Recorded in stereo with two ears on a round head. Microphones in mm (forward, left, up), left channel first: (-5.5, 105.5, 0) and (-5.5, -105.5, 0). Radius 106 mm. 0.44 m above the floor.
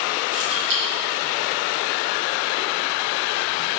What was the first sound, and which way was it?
Keys jangling, 55° right (ahead or behind).